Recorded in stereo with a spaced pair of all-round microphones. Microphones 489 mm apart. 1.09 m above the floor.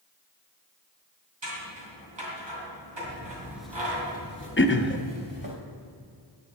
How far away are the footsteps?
About 1.1 m.